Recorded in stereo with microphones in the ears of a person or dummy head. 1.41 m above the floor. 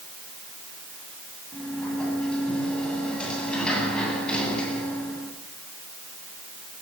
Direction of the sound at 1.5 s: 5° left (ahead or behind).